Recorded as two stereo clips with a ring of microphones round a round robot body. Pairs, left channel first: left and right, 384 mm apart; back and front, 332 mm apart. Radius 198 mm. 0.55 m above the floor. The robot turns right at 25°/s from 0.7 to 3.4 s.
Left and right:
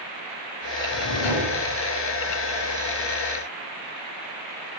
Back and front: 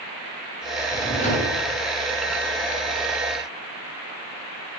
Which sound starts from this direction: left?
A drawer, at 0.9 s.